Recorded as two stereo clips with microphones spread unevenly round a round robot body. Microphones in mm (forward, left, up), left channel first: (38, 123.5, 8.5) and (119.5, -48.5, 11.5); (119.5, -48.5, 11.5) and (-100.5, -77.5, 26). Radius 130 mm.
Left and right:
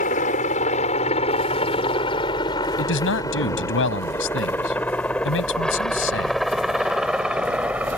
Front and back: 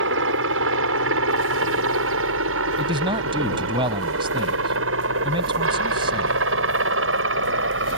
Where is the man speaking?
115° left.